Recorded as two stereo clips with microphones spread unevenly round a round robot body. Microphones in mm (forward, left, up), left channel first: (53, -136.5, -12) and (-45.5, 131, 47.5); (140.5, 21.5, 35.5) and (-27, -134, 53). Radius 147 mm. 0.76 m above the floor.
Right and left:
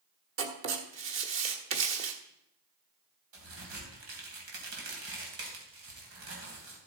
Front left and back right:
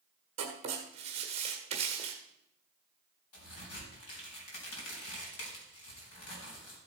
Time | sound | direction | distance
0.4 | writing | 155° left | 1.4 m
3.3 | a crack | 70° left | 3.5 m